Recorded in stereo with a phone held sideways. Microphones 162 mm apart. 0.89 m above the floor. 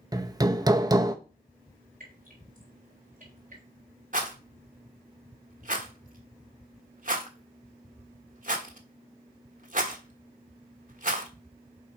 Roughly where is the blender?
I don't hear a blender.